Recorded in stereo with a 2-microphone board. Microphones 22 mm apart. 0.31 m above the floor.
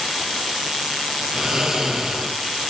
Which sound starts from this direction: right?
Snoring, at 1.3 s.